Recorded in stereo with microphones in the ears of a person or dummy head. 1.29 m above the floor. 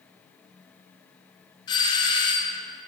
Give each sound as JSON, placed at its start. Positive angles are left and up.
{"t": 1.7, "sound": "a doorbell", "side_deg": 25, "distance_m": 0.6}